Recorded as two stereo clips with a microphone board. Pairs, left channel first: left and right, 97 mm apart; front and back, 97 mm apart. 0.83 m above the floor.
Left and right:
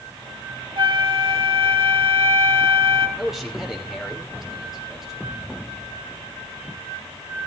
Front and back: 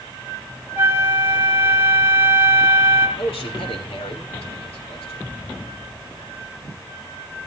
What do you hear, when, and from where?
0.8 s a flute: 115° right, 2 m
3.2 s a man speaking: 5° right, 3 m